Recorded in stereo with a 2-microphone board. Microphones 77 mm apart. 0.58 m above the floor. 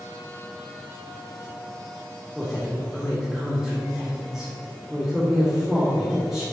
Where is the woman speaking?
5° right (ahead or behind), 1.8 m.